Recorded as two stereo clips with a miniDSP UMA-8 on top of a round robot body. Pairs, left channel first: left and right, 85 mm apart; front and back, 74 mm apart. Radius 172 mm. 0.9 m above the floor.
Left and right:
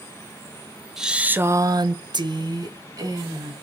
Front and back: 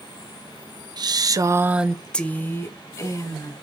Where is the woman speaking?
175° right, 1.0 m; by 3.5 s 45° right, 2 m.